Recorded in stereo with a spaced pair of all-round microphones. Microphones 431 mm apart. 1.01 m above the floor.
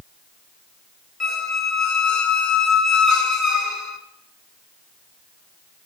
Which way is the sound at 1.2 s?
40° left (ahead or behind).